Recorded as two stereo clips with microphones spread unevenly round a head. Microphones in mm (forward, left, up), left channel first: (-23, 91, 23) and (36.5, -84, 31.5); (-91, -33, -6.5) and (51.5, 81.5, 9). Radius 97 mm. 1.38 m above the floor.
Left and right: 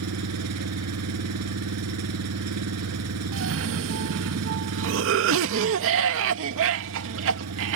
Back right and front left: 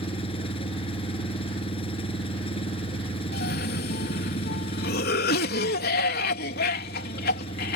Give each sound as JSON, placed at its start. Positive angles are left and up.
{"t": 0.0, "sound": "an engine running", "azimuth_deg": -75}
{"t": 3.3, "sound": "a cough", "azimuth_deg": -95}